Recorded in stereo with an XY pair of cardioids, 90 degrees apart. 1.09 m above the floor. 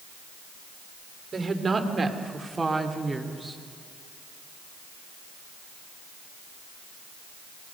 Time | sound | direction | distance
1.3 | a woman speaking | 40° right | 3 m